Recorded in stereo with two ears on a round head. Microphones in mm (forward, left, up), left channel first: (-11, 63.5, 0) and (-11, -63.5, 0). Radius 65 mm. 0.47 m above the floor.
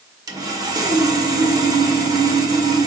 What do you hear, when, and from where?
0.3 s sawing: 25° right (ahead or behind), 1.8 m